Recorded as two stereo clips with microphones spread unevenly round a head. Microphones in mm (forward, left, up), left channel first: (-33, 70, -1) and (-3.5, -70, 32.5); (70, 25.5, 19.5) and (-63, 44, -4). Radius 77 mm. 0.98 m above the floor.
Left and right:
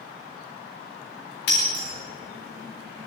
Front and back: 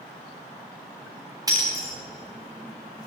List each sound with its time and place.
1.5 s breaking glass: 105° left, 9.5 m